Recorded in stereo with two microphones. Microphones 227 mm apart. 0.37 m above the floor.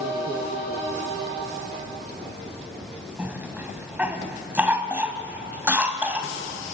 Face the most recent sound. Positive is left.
turn(degrees=-5)  # may be behind; listen again after turning